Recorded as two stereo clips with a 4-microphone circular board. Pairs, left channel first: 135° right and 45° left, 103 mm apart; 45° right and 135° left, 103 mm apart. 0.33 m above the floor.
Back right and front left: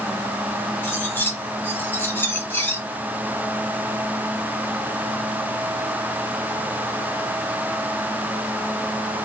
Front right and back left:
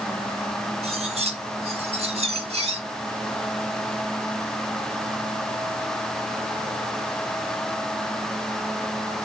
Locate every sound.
0.8 s cutlery clinking: 150° left, 1.9 m